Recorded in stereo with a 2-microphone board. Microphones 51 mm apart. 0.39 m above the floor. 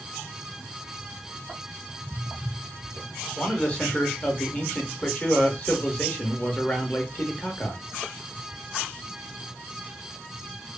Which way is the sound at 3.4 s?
25° left (ahead or behind).